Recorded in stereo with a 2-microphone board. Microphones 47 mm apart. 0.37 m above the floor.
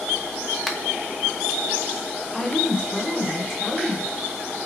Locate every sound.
0.7 s a finger snap: centre (ahead or behind), 0.8 m
2.3 s a woman speaking: 5° left (ahead or behind), 1.3 m